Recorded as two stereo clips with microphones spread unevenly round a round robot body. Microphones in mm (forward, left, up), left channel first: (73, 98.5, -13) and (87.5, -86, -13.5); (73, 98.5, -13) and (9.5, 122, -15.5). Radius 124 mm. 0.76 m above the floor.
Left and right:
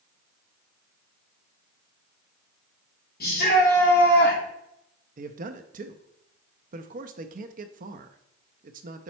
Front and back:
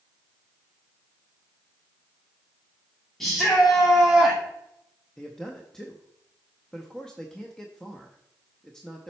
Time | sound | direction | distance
3.2 | a shout | 65° left | 2 m
5.2 | a man speaking | 105° right | 0.5 m